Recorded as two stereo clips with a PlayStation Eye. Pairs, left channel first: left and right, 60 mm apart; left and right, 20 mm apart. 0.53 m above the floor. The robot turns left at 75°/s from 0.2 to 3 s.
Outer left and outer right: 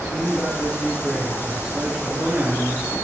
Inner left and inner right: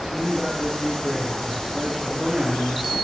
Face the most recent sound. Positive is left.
turn(degrees=-125)